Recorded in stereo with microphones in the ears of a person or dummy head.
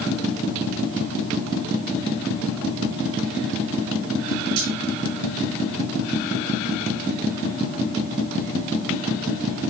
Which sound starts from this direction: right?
Cutlery clinking, at 4.6 s.